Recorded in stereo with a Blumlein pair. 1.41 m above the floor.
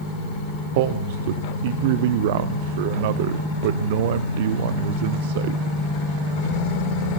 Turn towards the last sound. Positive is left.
turn(degrees=-50)